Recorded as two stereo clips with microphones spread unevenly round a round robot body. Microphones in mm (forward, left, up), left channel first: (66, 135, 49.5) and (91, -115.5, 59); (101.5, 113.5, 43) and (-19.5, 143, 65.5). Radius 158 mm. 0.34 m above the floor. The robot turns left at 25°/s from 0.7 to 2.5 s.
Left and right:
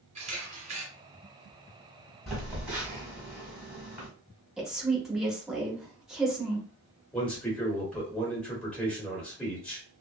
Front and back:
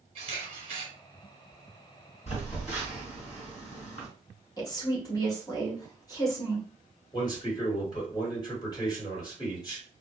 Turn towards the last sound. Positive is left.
turn(degrees=10)